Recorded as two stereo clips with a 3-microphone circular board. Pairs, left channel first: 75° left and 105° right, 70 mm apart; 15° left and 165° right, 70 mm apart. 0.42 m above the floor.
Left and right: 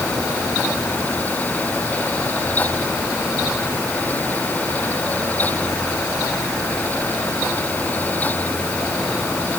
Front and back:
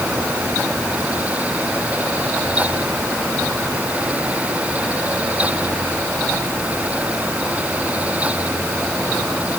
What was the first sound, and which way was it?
Only background noise.